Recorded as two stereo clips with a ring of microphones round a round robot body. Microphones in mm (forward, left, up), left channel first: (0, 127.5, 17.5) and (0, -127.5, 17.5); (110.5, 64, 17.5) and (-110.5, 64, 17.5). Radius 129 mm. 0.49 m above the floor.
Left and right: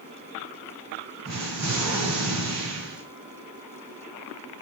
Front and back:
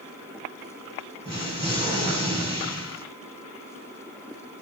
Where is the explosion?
115° right, 3.5 m.